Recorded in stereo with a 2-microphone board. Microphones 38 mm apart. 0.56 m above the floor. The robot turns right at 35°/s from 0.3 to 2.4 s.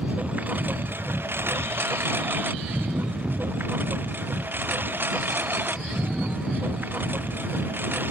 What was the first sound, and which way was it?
A lawn mower, 45° right (ahead or behind).